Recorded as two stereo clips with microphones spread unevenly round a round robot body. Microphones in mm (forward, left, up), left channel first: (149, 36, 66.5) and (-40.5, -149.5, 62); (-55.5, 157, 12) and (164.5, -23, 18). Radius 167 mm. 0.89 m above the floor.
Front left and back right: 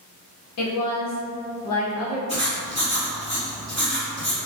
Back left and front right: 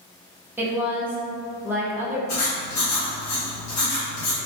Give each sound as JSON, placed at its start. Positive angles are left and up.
{"t": 0.6, "sound": "a woman speaking", "azimuth_deg": 45, "distance_m": 1.1}
{"t": 2.3, "sound": "writing", "azimuth_deg": 125, "distance_m": 1.8}